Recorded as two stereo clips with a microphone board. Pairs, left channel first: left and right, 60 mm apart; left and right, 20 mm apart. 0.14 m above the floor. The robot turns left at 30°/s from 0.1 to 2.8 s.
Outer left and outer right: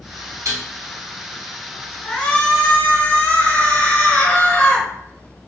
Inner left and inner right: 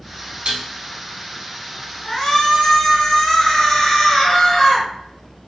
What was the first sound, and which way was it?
Dishes clattering, 55° right (ahead or behind).